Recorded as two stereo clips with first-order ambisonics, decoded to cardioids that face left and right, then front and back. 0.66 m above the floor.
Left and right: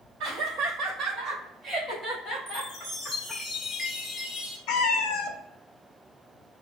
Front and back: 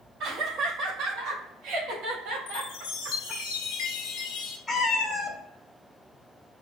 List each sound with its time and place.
0.2 s laughter: 140° right, 1.4 m; by 3.4 s 120° left, 1.2 m
2.5 s a chime: 15° left, 1.2 m
4.7 s a cat meowing: 75° left, 0.7 m